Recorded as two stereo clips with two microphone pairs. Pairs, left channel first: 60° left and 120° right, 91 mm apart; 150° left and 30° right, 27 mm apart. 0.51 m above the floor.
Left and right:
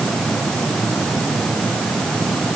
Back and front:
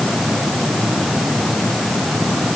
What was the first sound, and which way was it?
Only background noise.